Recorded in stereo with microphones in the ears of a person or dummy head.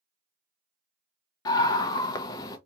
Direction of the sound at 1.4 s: 25° left (ahead or behind).